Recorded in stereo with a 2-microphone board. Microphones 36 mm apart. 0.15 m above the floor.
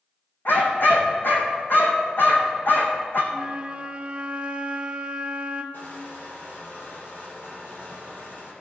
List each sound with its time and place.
0.5 s a dog barking: 65° left (ahead or behind), 1.8 m
3.3 s a flute: 30° right (ahead or behind), 0.9 m
5.7 s crushing: 60° left (ahead or behind), 3.5 m